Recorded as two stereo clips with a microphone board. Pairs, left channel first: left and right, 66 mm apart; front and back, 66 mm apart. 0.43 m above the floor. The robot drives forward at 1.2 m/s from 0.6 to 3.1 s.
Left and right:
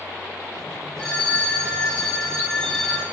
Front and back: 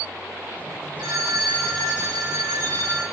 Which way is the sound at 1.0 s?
160° left.